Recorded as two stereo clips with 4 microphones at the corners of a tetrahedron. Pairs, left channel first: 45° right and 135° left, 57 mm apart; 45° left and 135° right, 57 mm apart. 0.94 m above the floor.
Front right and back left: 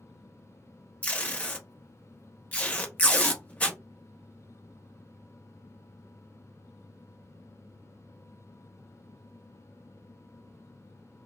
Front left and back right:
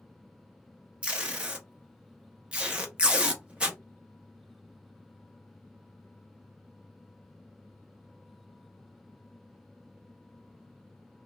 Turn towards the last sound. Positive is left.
turn(degrees=-85)